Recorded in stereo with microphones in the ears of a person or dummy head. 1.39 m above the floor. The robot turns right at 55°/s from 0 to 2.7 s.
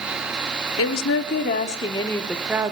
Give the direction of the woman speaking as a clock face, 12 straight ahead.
9 o'clock.